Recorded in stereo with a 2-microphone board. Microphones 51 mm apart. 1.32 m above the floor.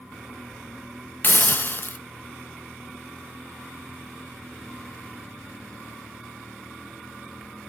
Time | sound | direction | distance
1.2 | a hiss | 45° left (ahead or behind) | 0.8 m